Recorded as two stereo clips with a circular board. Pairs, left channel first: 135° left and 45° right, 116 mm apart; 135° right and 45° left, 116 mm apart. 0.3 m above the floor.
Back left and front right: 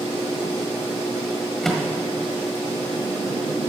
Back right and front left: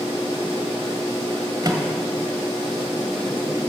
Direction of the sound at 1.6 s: 50° left.